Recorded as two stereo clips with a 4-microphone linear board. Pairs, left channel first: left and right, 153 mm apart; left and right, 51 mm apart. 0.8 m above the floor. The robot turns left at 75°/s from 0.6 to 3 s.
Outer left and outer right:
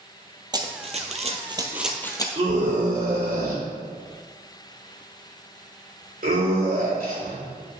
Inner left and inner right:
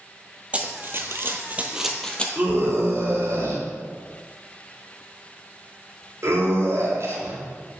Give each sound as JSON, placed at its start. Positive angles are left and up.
{"t": 0.5, "sound": "running footsteps", "side_deg": -25, "distance_m": 1.2}
{"t": 2.4, "sound": "a scream", "side_deg": -35, "distance_m": 3.0}